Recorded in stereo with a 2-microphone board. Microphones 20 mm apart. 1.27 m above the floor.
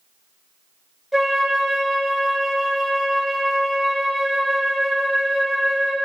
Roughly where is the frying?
I don't hear frying.